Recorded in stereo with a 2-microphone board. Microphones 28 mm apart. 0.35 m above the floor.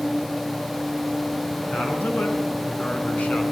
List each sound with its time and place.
1.7 s a man speaking: 65° left (ahead or behind), 4 m; by 3.4 s 60° left (ahead or behind), 3.5 m